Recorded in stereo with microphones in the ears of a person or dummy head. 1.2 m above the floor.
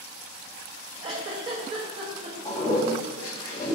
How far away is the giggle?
About 0.8 m.